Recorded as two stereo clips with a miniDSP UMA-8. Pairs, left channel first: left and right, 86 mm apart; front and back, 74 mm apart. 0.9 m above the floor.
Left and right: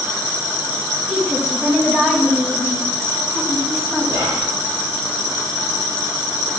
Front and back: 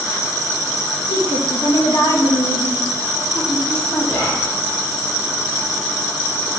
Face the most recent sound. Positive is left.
turn(degrees=-60)